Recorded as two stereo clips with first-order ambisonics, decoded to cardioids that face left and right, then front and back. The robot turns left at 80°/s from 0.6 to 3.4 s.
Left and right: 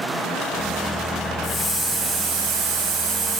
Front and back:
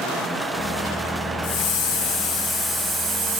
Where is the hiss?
15° left, 1.6 m; by 3.4 s 145° right, 1.6 m.